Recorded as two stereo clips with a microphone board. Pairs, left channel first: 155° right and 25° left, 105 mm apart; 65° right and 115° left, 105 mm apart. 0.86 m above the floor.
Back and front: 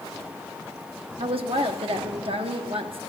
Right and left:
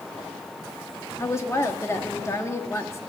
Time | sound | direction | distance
1.2 | a woman speaking | 5° right | 1.3 m